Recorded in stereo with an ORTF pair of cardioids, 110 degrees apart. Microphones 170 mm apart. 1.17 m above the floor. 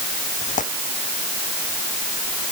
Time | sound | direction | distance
0.4 | tearing paper | 50° left | ?